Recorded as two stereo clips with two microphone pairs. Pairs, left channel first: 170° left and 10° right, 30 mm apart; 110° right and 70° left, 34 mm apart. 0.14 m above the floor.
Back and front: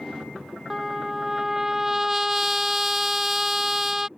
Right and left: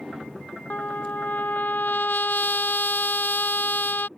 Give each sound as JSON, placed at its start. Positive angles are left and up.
{"t": 0.7, "sound": "a trumpet", "azimuth_deg": -90}